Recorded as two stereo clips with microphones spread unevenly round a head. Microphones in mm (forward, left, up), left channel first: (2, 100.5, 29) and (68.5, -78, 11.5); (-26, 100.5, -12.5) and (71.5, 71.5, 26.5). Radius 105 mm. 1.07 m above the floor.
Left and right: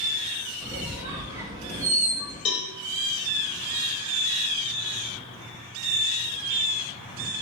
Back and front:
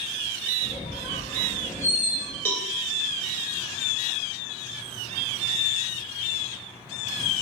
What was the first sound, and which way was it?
A squeak, 150° right.